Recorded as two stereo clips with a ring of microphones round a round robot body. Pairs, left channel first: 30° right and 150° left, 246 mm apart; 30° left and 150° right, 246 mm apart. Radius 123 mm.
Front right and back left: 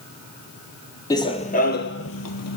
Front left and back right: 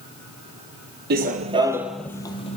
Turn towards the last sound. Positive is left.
turn(degrees=-30)